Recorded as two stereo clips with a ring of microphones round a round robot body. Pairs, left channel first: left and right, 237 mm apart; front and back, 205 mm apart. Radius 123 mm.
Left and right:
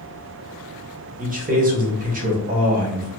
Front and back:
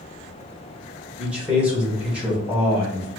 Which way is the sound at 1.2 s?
100° right.